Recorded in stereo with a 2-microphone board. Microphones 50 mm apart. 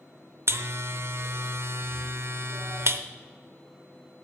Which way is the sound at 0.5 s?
55° right (ahead or behind).